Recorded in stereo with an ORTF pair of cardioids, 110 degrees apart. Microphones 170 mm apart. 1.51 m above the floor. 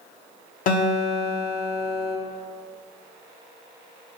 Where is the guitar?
50° left, 0.8 m.